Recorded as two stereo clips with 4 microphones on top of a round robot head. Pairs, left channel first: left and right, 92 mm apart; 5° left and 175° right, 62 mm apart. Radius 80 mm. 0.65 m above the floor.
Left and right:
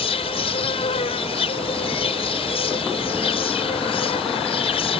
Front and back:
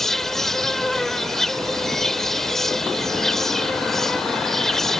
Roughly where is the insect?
Left.